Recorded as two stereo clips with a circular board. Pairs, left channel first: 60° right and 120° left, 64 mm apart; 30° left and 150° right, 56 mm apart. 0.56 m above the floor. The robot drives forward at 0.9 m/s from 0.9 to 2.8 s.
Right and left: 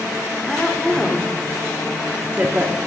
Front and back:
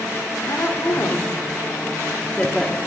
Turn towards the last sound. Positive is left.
turn(degrees=120)